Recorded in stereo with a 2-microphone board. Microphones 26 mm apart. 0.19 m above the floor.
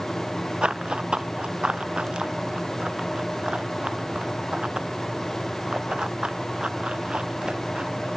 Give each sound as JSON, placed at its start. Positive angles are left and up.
{"t": 0.6, "sound": "running footsteps", "side_deg": -50}